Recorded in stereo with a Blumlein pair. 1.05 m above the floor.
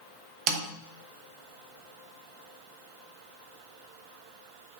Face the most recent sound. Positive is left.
turn(degrees=-35)